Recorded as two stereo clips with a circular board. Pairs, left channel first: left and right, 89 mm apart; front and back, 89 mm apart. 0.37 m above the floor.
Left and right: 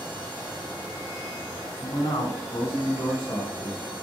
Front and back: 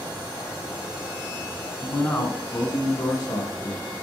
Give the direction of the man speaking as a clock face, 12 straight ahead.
10 o'clock.